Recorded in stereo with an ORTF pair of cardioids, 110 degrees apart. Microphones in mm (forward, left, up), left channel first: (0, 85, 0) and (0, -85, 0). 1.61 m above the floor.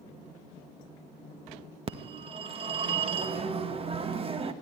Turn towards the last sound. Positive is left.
turn(degrees=-35)